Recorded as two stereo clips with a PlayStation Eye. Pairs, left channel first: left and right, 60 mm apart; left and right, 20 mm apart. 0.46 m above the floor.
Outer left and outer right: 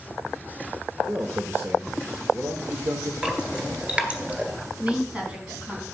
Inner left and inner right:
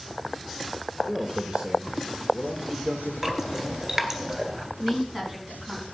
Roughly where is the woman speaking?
Right.